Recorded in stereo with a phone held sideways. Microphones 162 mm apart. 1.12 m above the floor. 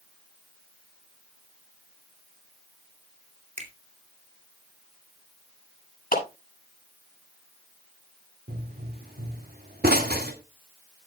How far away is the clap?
About 7.5 m.